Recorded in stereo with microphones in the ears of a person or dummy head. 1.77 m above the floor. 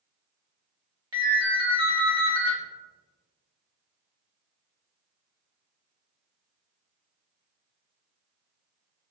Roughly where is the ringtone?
Centre.